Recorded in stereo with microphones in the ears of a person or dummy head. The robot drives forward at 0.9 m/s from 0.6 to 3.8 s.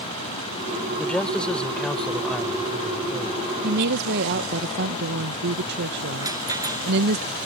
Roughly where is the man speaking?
Centre.